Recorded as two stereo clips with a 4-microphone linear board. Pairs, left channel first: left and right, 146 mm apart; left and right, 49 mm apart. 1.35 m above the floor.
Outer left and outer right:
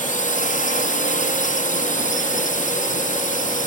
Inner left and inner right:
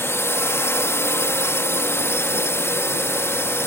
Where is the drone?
60° left (ahead or behind).